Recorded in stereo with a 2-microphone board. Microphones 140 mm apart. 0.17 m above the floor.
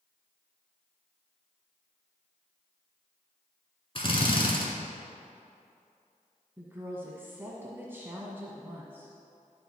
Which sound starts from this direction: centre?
A woman speaking, at 6.6 s.